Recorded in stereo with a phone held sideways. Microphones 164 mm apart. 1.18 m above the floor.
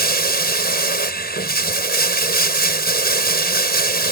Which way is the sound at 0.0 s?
75° left (ahead or behind).